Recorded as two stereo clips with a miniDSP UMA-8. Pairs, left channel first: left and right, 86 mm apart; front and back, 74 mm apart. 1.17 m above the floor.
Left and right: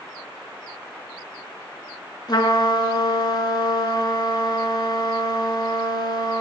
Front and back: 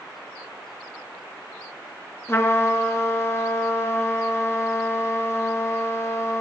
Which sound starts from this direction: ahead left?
A trumpet, at 2.3 s.